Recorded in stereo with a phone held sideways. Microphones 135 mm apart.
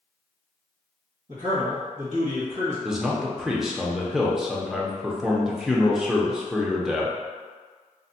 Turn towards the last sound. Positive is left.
turn(degrees=-5)  # may be behind; listen again after turning